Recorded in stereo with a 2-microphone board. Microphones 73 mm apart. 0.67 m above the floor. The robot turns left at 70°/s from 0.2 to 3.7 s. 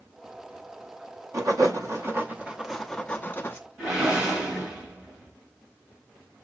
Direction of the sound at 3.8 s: 10° right (ahead or behind).